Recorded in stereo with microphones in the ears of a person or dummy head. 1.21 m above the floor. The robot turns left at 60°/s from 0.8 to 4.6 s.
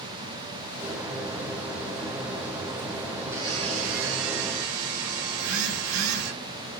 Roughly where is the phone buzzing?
Right.